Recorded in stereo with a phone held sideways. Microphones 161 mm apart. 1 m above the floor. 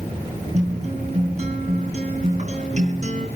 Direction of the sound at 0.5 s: 45° right (ahead or behind).